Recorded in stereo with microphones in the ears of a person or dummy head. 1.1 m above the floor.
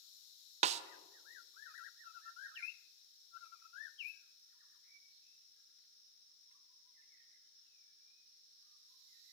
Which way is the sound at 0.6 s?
30° right (ahead or behind).